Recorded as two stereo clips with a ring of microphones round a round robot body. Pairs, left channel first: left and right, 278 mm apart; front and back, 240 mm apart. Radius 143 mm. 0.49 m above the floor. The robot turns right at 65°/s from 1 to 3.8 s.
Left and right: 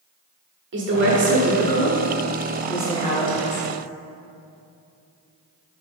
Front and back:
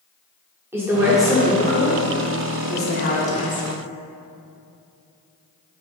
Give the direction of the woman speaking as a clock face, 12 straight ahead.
3 o'clock.